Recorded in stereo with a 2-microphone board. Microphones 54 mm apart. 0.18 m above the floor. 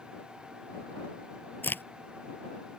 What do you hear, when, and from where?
1.6 s a crack: 40° left (ahead or behind)